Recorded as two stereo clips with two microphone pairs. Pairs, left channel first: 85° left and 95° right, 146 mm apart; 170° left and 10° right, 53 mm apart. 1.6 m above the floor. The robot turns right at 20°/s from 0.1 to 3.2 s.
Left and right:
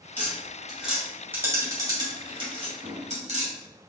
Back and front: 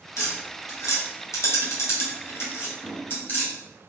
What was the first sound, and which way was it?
Tapping, 160° left.